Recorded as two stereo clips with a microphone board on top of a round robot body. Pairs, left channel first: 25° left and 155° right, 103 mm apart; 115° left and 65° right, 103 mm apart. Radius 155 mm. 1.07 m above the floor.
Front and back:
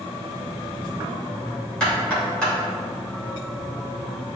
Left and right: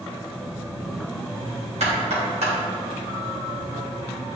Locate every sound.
1.8 s knocking: 60° right, 3 m